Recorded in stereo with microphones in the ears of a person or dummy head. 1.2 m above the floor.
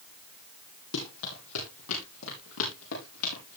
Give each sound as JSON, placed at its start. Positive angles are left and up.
{"t": 0.9, "sound": "running footsteps", "side_deg": 80, "distance_m": 9.0}